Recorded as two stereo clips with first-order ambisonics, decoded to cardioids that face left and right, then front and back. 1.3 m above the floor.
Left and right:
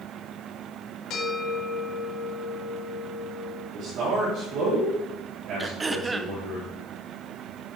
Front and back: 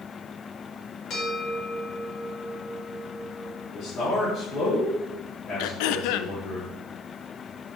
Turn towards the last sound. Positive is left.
turn(degrees=-15)